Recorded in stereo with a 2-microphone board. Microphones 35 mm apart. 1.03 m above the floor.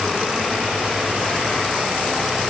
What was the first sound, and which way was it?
Only background noise.